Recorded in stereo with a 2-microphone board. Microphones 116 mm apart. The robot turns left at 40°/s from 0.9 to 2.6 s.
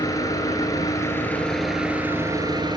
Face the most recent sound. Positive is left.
turn(degrees=-40)